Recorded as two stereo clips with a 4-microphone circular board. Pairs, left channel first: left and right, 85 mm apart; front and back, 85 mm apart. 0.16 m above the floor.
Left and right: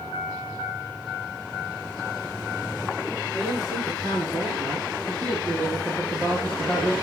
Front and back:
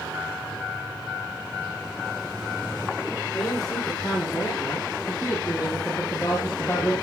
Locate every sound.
3.3 s a man speaking: 45° right, 7.5 m; by 6.9 s 50° right, 4 m